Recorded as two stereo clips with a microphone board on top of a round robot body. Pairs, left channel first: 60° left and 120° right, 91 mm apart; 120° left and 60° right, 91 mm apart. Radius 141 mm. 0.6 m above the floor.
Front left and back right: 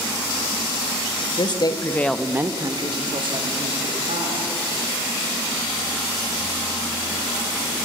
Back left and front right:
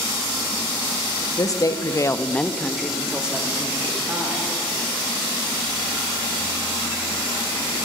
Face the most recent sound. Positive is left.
turn(degrees=-130)